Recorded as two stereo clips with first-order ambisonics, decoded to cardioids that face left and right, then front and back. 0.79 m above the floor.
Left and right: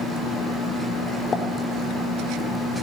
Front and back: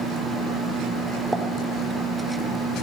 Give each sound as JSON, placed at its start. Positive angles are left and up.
{"t": 1.3, "sound": "a pop", "azimuth_deg": 105, "distance_m": 1.1}